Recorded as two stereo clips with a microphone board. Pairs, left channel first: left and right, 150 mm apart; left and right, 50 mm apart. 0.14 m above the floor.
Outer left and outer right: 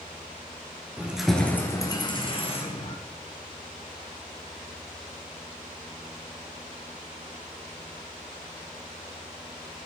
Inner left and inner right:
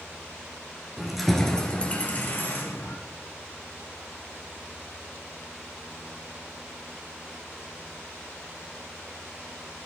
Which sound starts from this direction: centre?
Keys jangling, at 1.0 s.